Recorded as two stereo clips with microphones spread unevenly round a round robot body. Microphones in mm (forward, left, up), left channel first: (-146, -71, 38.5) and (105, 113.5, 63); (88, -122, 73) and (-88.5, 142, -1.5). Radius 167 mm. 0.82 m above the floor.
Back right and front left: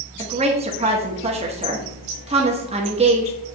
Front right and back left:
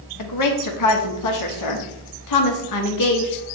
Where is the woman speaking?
35° right, 1.2 m.